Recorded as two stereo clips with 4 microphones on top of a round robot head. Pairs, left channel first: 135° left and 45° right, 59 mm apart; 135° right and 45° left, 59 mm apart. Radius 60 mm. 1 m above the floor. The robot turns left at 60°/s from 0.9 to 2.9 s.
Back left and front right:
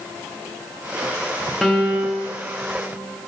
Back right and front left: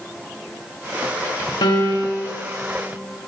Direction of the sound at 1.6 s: 135° right.